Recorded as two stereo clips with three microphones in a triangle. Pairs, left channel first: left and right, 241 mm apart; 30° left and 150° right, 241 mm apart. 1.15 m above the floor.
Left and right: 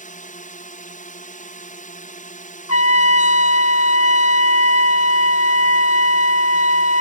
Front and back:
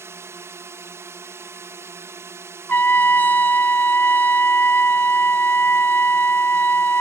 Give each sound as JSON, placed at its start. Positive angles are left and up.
{"t": 0.0, "sound": "a drone", "azimuth_deg": 135}
{"t": 2.7, "sound": "a trumpet", "azimuth_deg": 110}